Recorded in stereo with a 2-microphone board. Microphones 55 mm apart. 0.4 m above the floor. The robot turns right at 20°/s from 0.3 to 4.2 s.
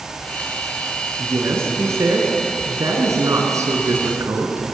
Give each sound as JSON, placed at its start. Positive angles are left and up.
{"t": 1.2, "sound": "a woman speaking", "azimuth_deg": -130, "distance_m": 4.5}